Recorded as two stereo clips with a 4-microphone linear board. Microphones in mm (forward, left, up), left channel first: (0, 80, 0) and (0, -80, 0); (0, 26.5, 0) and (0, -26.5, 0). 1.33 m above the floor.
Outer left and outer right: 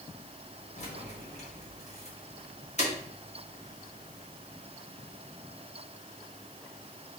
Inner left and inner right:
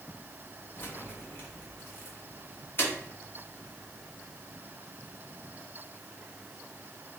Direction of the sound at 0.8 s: 45° left (ahead or behind).